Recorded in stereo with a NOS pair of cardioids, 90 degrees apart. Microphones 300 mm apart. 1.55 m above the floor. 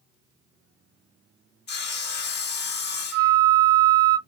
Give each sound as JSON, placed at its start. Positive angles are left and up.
{"t": 1.7, "sound": "sawing", "azimuth_deg": 35, "distance_m": 0.6}
{"t": 3.1, "sound": "a flute", "azimuth_deg": -55, "distance_m": 0.6}